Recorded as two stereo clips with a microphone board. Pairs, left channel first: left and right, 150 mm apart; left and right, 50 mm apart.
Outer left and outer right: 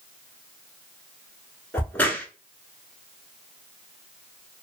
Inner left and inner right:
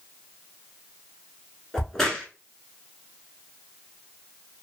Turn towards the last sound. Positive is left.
turn(degrees=10)  # may be behind; listen again after turning